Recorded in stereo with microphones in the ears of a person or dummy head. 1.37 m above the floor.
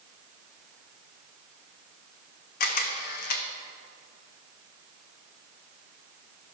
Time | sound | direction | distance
2.6 | a camera shutter | 50° left (ahead or behind) | 0.9 m